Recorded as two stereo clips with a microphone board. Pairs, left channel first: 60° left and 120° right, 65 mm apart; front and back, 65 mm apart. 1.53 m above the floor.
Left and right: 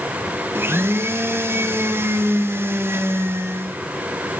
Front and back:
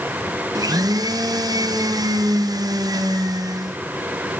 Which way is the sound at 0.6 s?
170° right.